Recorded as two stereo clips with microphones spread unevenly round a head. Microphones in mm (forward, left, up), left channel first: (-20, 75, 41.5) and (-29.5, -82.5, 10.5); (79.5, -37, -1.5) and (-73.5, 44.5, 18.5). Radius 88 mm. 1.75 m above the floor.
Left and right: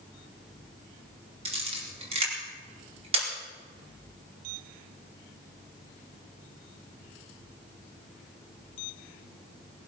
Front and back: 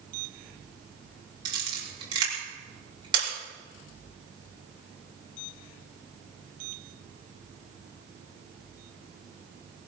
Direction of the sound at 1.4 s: 145° right.